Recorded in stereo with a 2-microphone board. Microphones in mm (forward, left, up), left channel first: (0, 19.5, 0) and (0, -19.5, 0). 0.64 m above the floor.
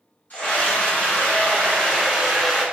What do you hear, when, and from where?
0.3 s a scream: 45° left (ahead or behind), 1.8 m; by 2.6 s centre (ahead or behind), 1.6 m